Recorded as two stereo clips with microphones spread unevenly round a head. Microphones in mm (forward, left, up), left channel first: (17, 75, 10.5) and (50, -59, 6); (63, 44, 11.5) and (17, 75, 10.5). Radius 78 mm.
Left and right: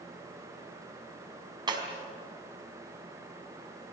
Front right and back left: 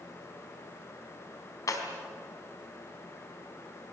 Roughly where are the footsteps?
No footsteps in this recording.